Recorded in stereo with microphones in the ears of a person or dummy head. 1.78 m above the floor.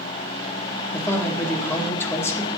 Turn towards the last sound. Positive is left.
turn(degrees=15)  # may be behind; listen again after turning